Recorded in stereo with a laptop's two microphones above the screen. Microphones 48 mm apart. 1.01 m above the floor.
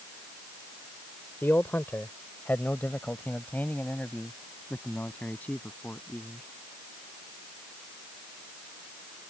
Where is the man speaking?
50° left (ahead or behind); by 6.5 s 30° left (ahead or behind).